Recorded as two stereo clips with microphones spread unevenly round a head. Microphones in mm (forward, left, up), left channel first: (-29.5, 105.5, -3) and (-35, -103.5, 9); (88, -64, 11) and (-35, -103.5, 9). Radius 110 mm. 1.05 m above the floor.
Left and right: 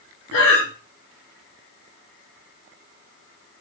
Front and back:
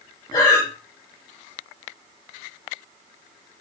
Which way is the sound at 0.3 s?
85° left.